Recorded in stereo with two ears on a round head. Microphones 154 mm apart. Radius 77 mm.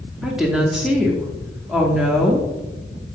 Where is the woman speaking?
5° right (ahead or behind), 0.7 m.